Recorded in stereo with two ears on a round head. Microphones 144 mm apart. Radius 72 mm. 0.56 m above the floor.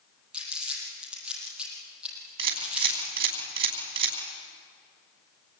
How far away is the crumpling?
About 8 m.